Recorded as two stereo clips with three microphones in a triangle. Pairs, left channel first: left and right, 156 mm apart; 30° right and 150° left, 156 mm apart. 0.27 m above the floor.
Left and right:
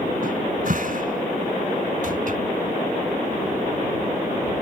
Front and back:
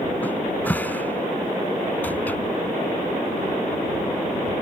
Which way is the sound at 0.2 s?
110° right.